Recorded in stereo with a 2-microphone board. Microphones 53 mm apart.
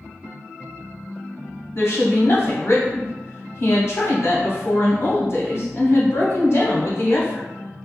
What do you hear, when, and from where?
1.8 s a woman speaking: 50° left (ahead or behind), 0.9 m